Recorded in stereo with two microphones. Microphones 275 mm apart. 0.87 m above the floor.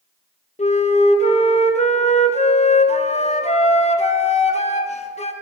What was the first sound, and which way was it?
A flute, 25° left (ahead or behind).